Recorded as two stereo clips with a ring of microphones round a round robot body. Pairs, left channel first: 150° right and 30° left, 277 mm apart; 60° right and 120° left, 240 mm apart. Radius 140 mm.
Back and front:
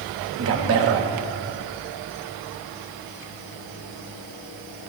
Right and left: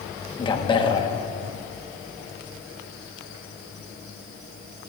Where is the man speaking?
5° left, 1.1 m.